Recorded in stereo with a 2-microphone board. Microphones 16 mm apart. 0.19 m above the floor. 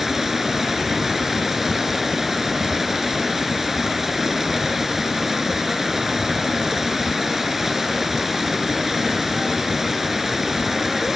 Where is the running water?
15° right (ahead or behind), 1.9 m.